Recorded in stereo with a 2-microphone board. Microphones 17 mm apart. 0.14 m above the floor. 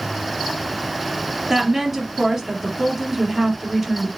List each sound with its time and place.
1.5 s a woman speaking: 15° right (ahead or behind), 3 m